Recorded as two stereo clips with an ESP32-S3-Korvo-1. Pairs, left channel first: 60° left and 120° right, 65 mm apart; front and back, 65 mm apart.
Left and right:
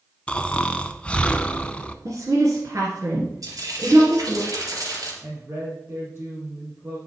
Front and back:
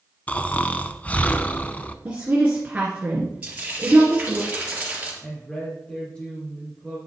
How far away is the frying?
About 3 m.